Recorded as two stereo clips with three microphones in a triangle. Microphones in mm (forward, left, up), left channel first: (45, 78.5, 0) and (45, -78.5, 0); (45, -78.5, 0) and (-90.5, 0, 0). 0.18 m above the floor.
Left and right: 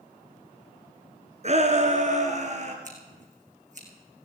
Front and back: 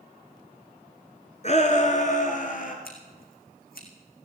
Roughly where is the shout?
Ahead right.